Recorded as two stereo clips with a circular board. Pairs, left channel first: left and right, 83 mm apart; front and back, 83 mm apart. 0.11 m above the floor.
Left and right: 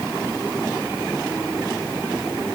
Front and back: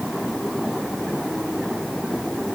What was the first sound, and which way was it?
Only background noise.